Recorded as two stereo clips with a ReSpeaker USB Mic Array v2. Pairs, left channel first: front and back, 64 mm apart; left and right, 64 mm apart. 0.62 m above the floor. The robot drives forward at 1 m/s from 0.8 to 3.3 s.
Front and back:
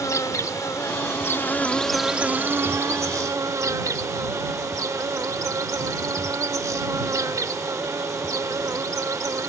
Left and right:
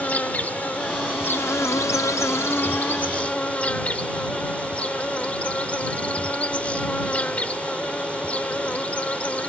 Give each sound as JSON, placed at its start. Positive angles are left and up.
{"t": 0.0, "sound": "an insect", "azimuth_deg": 25}